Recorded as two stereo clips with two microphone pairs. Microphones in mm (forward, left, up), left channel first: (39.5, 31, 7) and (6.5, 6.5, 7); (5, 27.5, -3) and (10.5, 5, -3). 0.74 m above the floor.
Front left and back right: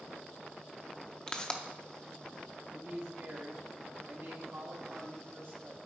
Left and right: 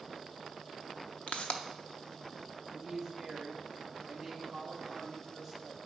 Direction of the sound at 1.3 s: 105° left.